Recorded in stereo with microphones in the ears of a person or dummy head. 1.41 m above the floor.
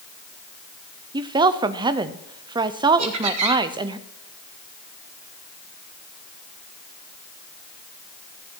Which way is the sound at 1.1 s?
20° right (ahead or behind).